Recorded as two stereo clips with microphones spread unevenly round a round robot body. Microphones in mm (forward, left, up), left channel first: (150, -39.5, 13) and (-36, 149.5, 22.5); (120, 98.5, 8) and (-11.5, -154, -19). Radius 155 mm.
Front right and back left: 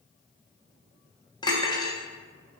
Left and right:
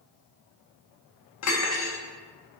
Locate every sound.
1.4 s cutlery clinking: 30° left, 0.8 m